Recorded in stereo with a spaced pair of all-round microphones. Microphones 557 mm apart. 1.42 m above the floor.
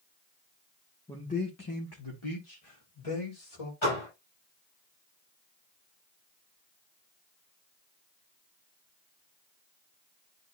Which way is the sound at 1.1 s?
5° left (ahead or behind).